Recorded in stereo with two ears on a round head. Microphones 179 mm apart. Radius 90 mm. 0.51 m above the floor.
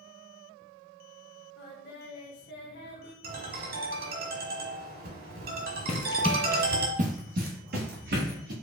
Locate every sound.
1.6 s singing: 55° left (ahead or behind), 0.8 m
3.2 s a ringtone: 50° right (ahead or behind), 1.0 m
5.9 s running footsteps: 35° left (ahead or behind), 0.6 m; by 8.5 s 55° right (ahead or behind), 2 m